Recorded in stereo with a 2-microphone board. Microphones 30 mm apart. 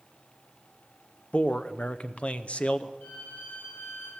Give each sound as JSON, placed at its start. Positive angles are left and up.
{"t": 1.3, "sound": "a man speaking", "side_deg": 45, "distance_m": 0.6}
{"t": 3.0, "sound": "a violin", "side_deg": 80, "distance_m": 9.0}